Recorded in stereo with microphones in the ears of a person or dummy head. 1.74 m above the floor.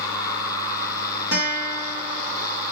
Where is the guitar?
65° left (ahead or behind), 1.0 m.